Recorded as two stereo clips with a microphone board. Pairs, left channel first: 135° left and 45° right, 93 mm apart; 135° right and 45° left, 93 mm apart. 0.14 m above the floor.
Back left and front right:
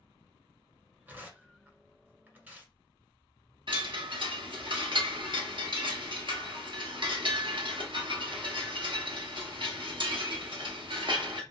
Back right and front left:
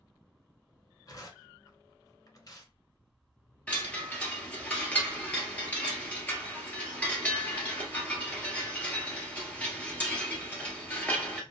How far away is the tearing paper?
About 1.6 m.